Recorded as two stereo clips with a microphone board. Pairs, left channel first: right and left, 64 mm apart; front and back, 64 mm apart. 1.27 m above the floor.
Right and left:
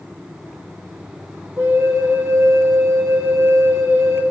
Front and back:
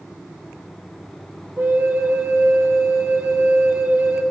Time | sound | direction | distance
1.6 | a flute | 125° left | 1.7 m